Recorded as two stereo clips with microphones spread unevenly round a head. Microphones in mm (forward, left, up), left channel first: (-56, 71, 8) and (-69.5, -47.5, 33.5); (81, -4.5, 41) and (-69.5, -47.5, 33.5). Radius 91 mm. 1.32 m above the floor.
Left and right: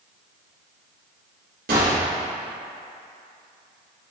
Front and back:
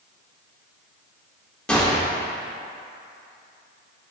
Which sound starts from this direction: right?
A gunshot, at 1.7 s.